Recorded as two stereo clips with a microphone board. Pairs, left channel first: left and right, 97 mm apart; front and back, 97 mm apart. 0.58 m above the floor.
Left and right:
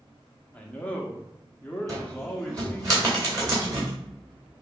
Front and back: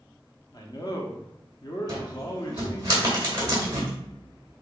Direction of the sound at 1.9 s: 135° right.